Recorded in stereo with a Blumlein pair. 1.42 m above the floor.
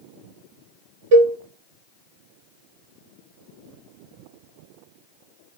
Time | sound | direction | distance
1.1 | a cowbell | 50° right | 0.5 m